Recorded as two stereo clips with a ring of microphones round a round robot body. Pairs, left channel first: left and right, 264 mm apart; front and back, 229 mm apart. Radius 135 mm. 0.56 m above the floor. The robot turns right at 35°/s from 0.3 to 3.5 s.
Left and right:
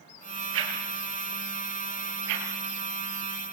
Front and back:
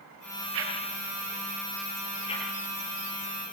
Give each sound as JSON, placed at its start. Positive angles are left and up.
{"t": 0.5, "sound": "a whoosh", "azimuth_deg": -135, "distance_m": 5.0}